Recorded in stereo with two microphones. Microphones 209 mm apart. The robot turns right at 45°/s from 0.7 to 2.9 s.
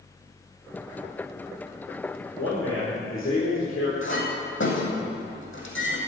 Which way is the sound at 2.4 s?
75° left (ahead or behind).